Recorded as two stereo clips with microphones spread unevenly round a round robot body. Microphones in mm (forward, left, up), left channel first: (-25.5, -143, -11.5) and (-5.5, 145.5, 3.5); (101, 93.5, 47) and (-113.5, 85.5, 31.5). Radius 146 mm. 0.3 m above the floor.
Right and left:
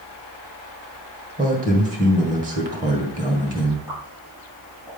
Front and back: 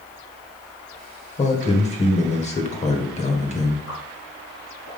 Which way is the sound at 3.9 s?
Straight ahead.